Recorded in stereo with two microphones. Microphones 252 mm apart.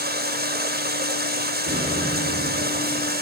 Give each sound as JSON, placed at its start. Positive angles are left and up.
{"t": 0.0, "sound": "running water", "side_deg": -40, "distance_m": 1.1}
{"t": 1.6, "sound": "an explosion", "side_deg": -55, "distance_m": 7.5}